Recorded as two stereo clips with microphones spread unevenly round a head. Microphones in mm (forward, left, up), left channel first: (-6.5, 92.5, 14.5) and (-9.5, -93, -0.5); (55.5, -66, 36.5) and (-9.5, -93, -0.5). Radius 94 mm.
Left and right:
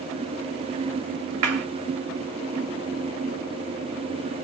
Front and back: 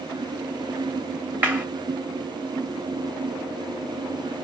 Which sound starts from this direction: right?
A clap, at 1.4 s.